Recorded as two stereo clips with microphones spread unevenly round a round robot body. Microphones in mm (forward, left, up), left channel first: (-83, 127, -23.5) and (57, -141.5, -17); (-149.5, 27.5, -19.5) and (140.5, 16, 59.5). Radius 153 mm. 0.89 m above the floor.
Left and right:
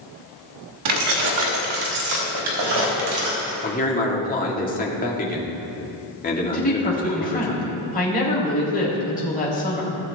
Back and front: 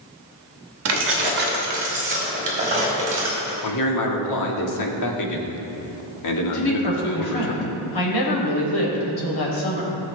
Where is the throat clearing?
No throat clearing in this recording.